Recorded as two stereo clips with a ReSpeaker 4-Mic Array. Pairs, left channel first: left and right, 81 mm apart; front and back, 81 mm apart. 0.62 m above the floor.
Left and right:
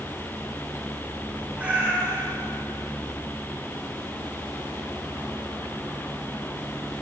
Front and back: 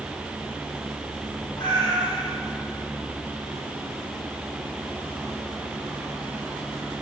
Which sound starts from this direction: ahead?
A cat meowing, at 1.6 s.